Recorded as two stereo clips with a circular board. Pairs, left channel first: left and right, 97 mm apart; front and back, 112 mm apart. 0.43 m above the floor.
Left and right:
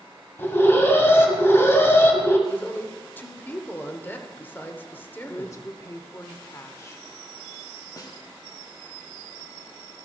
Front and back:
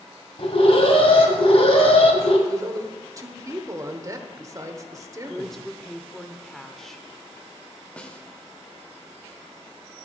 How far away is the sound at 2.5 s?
About 1.2 m.